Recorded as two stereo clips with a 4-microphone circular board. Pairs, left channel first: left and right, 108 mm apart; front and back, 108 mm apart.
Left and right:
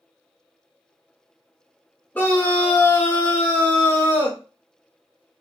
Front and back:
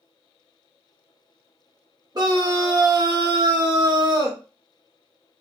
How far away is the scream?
About 1.0 m.